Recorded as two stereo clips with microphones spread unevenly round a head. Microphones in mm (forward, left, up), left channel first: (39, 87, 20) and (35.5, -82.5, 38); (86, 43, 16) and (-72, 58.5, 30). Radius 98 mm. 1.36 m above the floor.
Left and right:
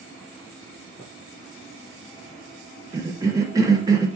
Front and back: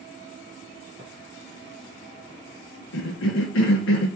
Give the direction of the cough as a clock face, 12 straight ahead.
1 o'clock.